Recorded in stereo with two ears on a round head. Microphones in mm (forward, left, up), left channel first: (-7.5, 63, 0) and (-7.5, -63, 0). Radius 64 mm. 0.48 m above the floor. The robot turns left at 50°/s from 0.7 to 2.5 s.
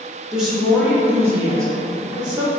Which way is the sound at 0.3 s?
5° right (ahead or behind).